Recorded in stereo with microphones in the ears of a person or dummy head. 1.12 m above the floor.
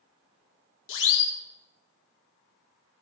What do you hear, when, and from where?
0.9 s a siren: 65° left (ahead or behind), 4 m